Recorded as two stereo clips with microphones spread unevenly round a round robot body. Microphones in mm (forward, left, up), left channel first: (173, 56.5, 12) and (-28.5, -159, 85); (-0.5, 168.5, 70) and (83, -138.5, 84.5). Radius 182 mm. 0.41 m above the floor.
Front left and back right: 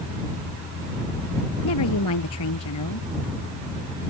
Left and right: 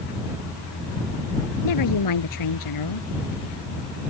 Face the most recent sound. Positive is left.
turn(degrees=90)